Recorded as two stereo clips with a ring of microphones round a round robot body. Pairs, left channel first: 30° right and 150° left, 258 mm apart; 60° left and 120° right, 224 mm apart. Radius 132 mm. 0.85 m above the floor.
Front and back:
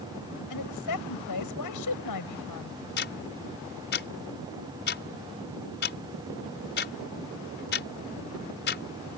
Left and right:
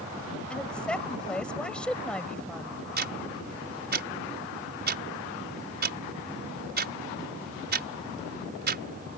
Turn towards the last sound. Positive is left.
turn(degrees=-80)